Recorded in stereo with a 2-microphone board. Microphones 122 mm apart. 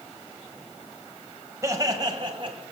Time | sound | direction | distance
1.6 | laughter | 25° right (ahead or behind) | 1.3 m